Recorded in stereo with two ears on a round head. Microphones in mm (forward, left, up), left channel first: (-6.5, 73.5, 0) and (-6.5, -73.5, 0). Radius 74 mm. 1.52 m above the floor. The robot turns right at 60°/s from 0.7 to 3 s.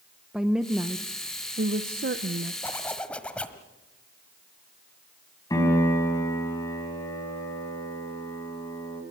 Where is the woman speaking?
175° right, 0.8 m; by 2.5 s 65° right, 0.8 m.